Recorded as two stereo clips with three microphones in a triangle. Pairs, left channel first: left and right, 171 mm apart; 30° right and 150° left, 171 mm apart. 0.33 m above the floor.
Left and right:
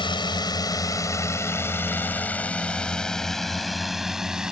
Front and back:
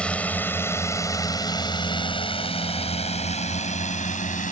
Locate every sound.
0.0 s a drone: 50° left; by 4.5 s 5° right